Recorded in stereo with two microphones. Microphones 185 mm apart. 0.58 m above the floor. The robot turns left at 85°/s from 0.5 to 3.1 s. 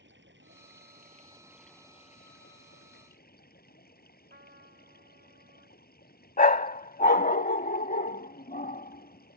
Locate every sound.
0.0 s running water: 85° right; by 9.4 s 55° left
4.3 s a trumpet: 60° right (ahead or behind)
6.4 s a dog barking: 50° left (ahead or behind)